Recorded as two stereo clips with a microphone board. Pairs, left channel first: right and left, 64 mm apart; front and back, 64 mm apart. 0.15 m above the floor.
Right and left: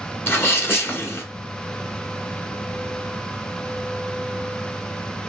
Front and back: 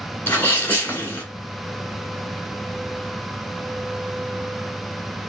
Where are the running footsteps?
No running footsteps in this recording.